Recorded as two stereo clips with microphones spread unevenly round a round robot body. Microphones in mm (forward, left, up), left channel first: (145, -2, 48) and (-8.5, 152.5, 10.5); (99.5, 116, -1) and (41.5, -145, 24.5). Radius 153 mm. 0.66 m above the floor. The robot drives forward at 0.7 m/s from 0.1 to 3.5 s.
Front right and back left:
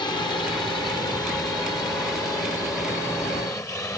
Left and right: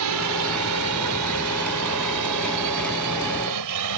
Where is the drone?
125° right; by 4.0 s 130° right.